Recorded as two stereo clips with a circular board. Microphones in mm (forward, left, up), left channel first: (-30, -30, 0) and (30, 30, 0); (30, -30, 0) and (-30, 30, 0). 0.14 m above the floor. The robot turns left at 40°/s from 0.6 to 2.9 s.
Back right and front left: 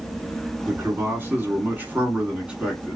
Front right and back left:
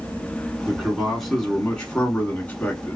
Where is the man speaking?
65° left, 1.3 m; by 3.0 s 25° right, 1.3 m.